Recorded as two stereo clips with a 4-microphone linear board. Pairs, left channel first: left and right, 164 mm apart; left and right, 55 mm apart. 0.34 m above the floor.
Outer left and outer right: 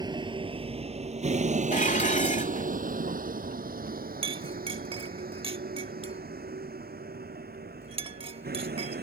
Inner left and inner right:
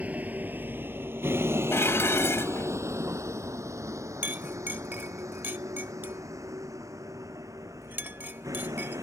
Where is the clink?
35° right (ahead or behind).